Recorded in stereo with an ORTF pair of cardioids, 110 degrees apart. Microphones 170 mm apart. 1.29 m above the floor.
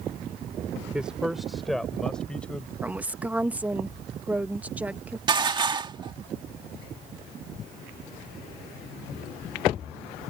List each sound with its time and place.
0.9 s a man speaking: 5° right; by 2.7 s 5° left
2.8 s a woman speaking: 10° right
5.3 s dishes clattering: 25° right